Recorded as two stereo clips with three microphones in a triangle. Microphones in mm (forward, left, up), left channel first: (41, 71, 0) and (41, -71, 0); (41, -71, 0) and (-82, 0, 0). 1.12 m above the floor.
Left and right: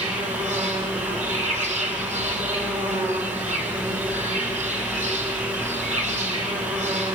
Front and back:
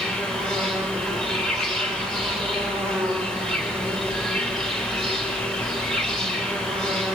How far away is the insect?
About 3.5 m.